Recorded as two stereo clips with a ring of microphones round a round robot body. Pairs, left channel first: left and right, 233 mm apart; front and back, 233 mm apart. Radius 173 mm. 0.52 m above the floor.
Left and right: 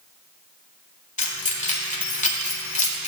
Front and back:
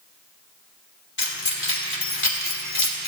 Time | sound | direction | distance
1.2 | keys jangling | 30° left | 1.7 m